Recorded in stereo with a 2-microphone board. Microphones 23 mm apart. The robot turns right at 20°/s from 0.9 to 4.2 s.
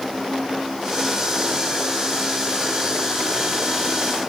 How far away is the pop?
No pop in this recording.